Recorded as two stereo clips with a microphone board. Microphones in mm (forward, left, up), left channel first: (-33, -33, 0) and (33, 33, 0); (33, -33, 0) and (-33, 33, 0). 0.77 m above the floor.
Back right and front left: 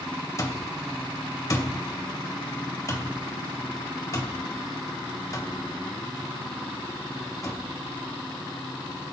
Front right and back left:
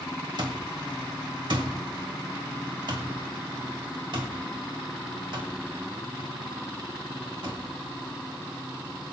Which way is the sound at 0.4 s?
170° left.